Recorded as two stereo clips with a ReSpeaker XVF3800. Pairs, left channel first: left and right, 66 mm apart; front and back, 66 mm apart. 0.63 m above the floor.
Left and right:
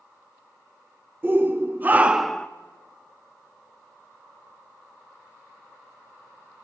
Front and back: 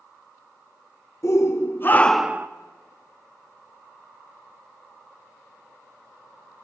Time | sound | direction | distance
1.2 | a shout | 35° right | 1.6 m